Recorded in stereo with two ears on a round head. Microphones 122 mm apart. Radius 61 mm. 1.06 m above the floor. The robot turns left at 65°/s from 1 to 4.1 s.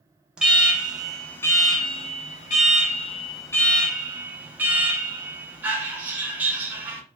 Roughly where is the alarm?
Behind.